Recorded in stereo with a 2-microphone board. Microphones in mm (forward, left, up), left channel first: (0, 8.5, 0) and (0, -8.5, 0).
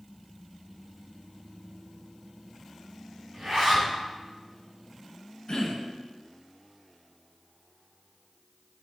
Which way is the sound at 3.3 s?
50° right (ahead or behind).